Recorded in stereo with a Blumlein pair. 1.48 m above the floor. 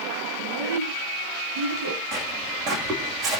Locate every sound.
0.4 s a child speaking: 70° right, 9 m
2.1 s footsteps: 25° right, 6 m